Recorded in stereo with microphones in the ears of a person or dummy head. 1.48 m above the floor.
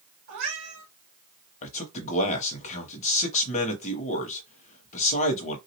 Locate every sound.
0.3 s a cat meowing: 55° right (ahead or behind), 1.4 m
1.6 s a man speaking: 40° left (ahead or behind), 0.8 m